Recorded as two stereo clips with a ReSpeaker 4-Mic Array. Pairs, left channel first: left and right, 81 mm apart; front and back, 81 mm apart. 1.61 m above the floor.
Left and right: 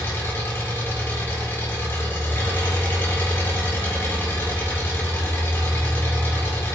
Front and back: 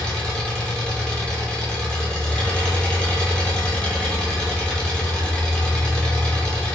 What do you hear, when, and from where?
0.0 s an engine running: 65° left, 0.9 m